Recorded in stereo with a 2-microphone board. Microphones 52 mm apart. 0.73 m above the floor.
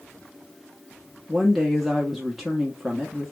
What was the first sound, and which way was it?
A woman speaking, 5° right (ahead or behind).